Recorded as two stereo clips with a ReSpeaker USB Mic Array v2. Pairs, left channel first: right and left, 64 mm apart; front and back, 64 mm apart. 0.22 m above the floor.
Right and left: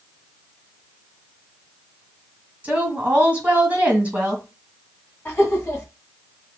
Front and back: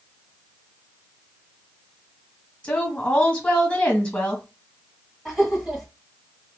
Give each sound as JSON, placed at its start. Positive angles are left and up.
{"t": 2.6, "sound": "a woman speaking", "azimuth_deg": 50, "distance_m": 1.3}
{"t": 5.2, "sound": "laughter", "azimuth_deg": -105, "distance_m": 1.3}